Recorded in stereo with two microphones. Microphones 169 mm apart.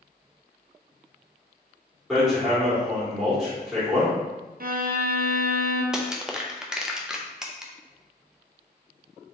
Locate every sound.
2.1 s hammering: 5° right (ahead or behind), 1.7 m
4.6 s a violin: 60° right (ahead or behind), 0.6 m
5.9 s crushing: 5° right (ahead or behind), 0.5 m